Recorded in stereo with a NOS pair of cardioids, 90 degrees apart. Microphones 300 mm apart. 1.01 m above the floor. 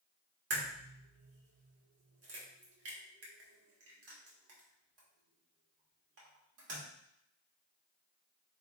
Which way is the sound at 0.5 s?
50° right.